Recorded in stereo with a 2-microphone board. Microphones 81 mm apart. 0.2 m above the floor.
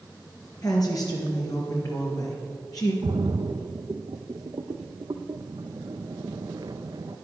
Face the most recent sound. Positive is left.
turn(degrees=-60)  # may be behind; listen again after turning